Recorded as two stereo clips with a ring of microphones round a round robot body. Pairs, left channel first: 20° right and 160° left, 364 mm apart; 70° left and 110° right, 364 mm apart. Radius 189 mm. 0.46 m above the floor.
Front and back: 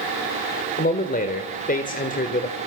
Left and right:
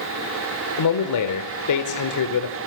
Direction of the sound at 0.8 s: 40° left.